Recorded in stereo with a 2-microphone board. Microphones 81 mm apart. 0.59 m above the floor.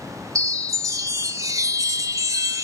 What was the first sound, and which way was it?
A chime, 40° right (ahead or behind).